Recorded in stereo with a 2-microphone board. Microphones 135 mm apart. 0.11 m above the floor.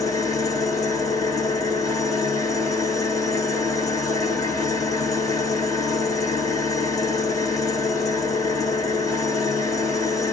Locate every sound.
0.0 s an engine running: 25° left (ahead or behind), 2 m